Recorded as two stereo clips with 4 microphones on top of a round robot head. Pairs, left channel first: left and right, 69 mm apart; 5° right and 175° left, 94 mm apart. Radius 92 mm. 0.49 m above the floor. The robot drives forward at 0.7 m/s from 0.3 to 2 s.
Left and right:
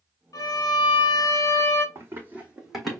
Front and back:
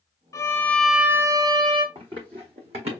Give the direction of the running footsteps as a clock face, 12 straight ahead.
5 o'clock.